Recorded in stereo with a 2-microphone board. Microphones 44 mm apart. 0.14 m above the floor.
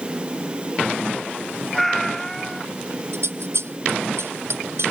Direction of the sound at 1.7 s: 5° left (ahead or behind).